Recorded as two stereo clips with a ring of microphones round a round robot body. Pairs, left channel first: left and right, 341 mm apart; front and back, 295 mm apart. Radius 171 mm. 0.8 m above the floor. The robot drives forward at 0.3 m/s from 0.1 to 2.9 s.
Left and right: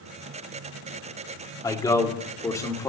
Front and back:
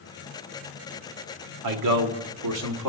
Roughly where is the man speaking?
Behind.